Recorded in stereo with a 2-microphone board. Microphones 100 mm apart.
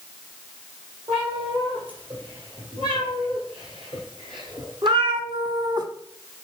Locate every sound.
1.1 s a cat meowing: 60° right (ahead or behind), 3.5 m; by 5.9 s 40° right (ahead or behind), 0.7 m